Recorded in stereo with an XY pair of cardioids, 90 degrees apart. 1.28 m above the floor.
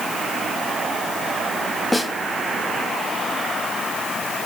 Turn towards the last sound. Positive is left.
turn(degrees=10)